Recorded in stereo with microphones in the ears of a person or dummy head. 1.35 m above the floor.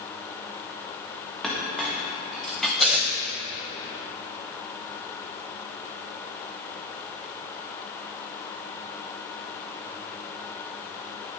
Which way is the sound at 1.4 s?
Centre (ahead or behind).